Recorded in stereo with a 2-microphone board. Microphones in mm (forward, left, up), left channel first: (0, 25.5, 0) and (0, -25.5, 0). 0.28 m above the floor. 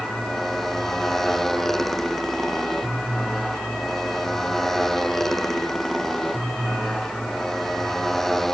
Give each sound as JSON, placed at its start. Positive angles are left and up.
{"t": 0.0, "sound": "a motorcycle", "side_deg": 5}